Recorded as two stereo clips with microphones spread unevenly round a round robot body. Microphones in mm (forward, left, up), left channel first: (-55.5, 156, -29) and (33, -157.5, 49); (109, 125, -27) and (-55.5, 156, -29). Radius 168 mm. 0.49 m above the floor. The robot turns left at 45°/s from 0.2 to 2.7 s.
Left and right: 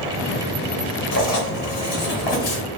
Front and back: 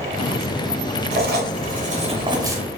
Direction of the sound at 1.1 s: 160° left.